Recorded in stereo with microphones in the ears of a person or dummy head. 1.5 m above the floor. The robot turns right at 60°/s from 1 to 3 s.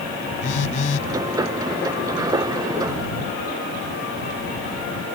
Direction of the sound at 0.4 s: 45° left (ahead or behind).